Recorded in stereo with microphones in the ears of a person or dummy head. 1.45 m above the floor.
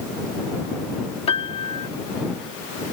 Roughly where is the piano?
Left.